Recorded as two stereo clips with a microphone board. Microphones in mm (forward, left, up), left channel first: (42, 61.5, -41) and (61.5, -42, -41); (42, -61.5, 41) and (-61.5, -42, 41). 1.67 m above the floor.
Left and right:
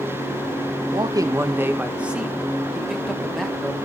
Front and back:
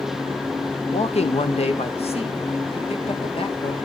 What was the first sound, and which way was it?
A man speaking, 30° right.